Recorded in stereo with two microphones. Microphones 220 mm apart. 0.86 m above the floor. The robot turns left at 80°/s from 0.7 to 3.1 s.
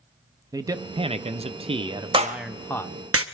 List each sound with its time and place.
0.5 s a man speaking: 15° right (ahead or behind), 0.5 m; by 3.0 s 15° left (ahead or behind), 0.5 m
2.1 s a clap: 20° right (ahead or behind), 0.9 m; by 3.2 s 70° right (ahead or behind), 0.9 m